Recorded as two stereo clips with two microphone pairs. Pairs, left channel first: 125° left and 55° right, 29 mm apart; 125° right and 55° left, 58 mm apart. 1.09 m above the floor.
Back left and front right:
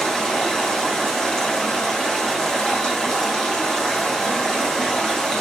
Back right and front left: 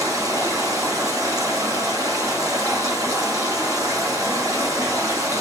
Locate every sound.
0.0 s running water: 60° left, 5.5 m